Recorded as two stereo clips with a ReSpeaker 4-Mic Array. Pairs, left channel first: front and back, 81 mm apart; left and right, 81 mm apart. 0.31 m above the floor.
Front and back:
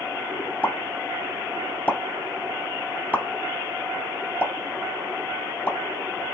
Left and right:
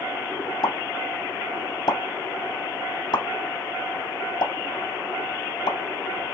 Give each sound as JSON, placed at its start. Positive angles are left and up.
{"t": 0.6, "sound": "a pop", "azimuth_deg": 70, "distance_m": 0.8}